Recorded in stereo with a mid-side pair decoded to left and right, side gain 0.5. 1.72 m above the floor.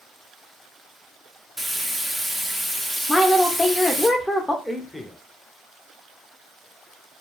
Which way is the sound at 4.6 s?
5° left.